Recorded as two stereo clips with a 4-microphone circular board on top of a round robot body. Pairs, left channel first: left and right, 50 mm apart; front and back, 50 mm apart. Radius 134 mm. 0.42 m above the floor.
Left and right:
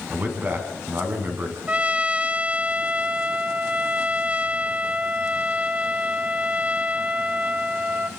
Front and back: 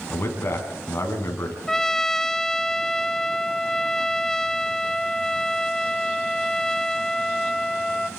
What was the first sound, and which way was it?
A man speaking, 40° right.